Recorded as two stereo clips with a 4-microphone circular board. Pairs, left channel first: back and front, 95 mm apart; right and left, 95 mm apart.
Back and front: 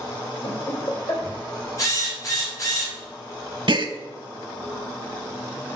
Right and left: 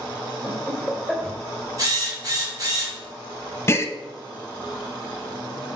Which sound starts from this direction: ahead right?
A gasp, at 3.7 s.